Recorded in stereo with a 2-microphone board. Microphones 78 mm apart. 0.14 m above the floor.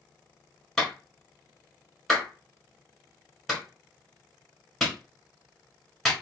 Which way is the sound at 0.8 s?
5° left (ahead or behind).